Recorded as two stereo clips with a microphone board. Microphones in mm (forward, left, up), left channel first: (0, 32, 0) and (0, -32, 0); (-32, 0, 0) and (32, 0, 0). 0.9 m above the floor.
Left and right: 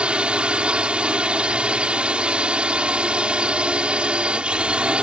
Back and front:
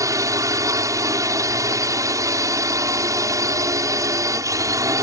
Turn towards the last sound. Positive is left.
turn(degrees=-20)